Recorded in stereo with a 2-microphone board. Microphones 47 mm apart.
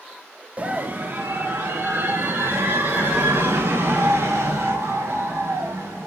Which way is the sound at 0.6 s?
30° right (ahead or behind).